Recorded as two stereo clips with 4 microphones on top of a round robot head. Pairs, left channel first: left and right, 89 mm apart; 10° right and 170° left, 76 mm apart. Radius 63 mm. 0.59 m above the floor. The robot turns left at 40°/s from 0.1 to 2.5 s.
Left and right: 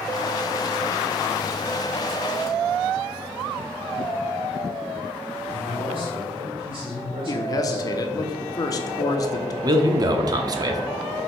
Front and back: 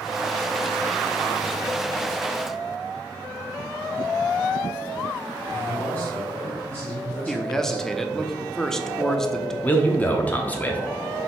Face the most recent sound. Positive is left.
turn(degrees=-75)